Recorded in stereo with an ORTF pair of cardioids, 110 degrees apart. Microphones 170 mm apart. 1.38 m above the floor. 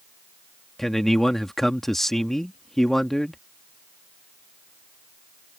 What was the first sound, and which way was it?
A man speaking, straight ahead.